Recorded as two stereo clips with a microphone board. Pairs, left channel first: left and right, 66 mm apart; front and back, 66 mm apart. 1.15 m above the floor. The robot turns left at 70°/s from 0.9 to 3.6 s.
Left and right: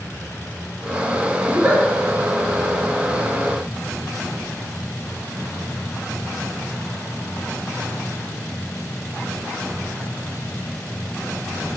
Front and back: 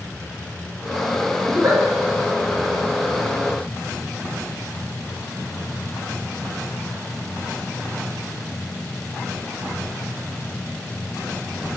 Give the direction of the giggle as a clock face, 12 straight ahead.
5 o'clock.